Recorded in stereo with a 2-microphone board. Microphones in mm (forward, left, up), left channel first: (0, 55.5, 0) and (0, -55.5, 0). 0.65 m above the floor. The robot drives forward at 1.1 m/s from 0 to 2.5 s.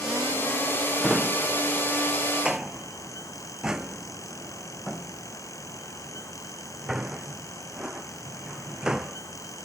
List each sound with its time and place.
1.0 s a drawer: 5° right (ahead or behind)